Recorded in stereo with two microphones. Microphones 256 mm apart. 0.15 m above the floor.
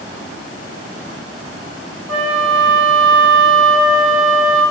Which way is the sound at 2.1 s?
Centre (ahead or behind).